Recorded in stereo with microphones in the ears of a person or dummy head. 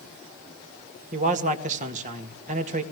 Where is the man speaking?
45° right (ahead or behind), 2.0 m.